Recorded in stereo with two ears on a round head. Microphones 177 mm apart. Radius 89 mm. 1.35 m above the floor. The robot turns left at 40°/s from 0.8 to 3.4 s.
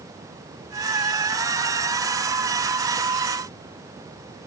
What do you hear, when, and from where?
Only background noise.